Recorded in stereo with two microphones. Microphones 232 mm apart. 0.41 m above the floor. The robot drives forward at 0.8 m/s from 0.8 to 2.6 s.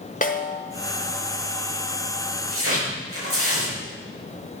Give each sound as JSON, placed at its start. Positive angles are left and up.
{"t": 0.2, "sound": "a snare drum", "side_deg": 35, "distance_m": 1.1}
{"t": 2.5, "sound": "tearing paper", "side_deg": -70, "distance_m": 5.5}